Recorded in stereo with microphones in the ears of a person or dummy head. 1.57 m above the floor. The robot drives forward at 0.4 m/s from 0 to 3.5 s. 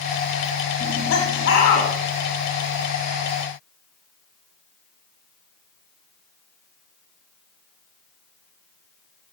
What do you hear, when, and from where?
0.8 s laughter: 60° left (ahead or behind), 3 m; by 1.9 s 50° left (ahead or behind), 3.5 m